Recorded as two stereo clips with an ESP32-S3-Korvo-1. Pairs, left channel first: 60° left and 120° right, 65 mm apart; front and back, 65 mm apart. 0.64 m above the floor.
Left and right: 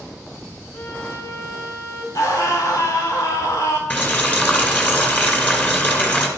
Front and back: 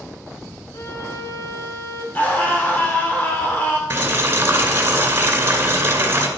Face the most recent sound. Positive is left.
turn(degrees=125)